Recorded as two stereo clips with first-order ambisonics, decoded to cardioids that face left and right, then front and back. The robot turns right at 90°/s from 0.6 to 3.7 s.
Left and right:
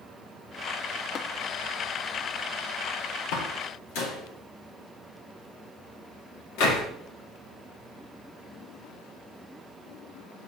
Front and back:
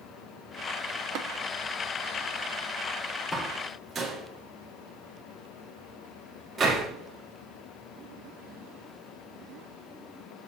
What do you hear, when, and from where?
1.1 s tapping: 145° left, 0.6 m; by 1.3 s 160° left, 0.6 m
3.3 s a door slam: 70° left, 1.8 m; by 6.9 s 105° left, 1.8 m